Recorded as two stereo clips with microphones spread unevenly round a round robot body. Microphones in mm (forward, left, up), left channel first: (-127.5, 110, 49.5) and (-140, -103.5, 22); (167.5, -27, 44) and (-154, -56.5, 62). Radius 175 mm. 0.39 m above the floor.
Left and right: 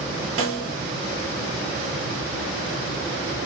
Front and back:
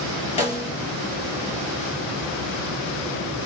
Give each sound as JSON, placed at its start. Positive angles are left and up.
{"t": 0.4, "sound": "a snare drum", "azimuth_deg": -65, "distance_m": 2.0}